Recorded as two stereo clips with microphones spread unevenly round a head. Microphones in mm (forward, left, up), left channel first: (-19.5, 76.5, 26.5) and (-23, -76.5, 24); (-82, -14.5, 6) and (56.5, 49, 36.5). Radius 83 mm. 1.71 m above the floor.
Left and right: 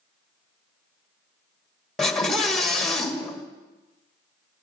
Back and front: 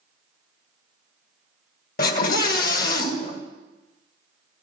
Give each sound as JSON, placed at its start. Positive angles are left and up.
{"t": 2.0, "sound": "a scream", "azimuth_deg": 175, "distance_m": 2.5}